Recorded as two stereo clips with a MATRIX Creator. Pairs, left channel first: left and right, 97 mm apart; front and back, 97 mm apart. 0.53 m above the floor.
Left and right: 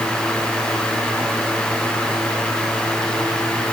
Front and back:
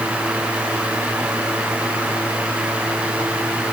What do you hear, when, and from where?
Only background noise.